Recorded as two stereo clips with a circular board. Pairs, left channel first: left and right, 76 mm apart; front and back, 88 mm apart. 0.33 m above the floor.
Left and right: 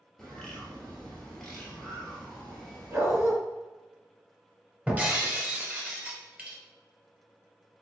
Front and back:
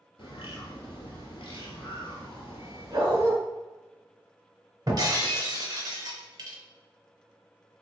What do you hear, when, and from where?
0.2 s a bird: 5° left, 1.3 m
2.9 s a dog barking: 135° right, 1.7 m
4.9 s breaking glass: 155° right, 0.8 m